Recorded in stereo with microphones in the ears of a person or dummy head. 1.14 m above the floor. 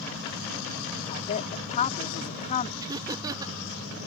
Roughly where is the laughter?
Centre.